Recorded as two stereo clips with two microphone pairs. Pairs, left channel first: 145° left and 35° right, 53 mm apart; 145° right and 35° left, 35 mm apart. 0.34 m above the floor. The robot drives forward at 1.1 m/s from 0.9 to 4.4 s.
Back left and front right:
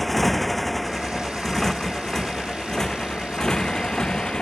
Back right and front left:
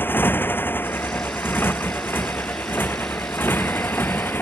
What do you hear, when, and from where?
0.0 s a motorcycle: 130° right; by 4.4 s 140° right